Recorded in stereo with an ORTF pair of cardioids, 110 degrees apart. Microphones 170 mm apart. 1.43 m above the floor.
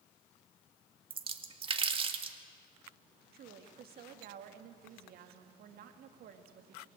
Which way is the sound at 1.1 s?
35° right.